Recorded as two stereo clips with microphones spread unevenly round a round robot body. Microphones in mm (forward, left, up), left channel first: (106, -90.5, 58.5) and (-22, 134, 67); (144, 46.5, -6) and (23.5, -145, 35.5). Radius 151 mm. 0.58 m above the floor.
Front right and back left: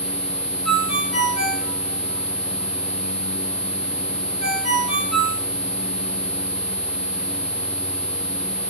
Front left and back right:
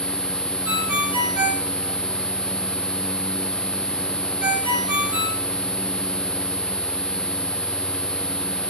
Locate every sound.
0.7 s a ringtone: 150° right, 5 m